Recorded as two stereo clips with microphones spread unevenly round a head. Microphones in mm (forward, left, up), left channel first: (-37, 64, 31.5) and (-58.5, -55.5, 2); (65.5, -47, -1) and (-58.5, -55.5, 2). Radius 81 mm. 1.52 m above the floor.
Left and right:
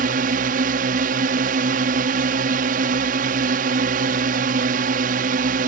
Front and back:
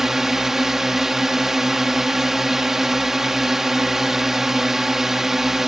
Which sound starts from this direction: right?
A drone, at 0.0 s.